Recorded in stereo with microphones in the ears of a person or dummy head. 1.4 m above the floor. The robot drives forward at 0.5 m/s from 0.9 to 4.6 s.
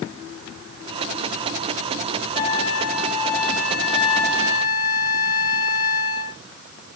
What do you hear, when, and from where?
2.4 s a flute: 45° left (ahead or behind), 2.5 m; by 6.4 s 75° left (ahead or behind), 1.8 m